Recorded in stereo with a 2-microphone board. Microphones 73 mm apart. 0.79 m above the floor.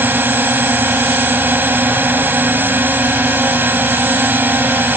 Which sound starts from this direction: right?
A drone, at 0.0 s.